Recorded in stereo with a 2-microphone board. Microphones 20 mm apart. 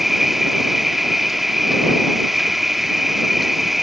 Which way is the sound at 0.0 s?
5° right (ahead or behind).